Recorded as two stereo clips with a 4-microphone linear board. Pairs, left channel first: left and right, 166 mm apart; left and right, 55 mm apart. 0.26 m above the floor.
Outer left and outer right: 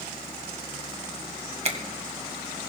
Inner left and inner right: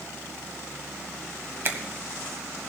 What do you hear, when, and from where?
1.6 s a finger snap: 40° right (ahead or behind), 1.4 m